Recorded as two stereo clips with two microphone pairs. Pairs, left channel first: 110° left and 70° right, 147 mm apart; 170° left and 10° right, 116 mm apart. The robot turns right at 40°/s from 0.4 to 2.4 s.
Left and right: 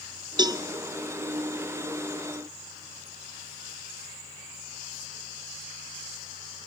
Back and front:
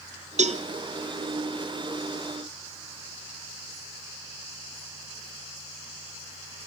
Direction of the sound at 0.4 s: 10° right.